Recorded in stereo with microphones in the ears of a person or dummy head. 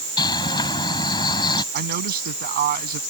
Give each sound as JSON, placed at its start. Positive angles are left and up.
{"t": 0.2, "sound": "a bird", "side_deg": 25}
{"t": 1.7, "sound": "a man speaking", "side_deg": -50}